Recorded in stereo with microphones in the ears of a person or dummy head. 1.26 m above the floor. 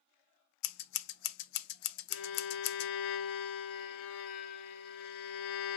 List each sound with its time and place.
0.6 s scissors: 60° left (ahead or behind), 0.5 m
2.1 s a violin: 55° left (ahead or behind), 0.8 m